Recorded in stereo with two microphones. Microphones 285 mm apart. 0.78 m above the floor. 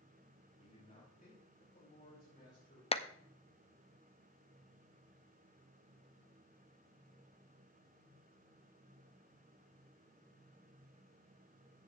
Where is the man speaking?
25° left (ahead or behind), 3 m; by 2.8 s 35° left (ahead or behind), 6 m.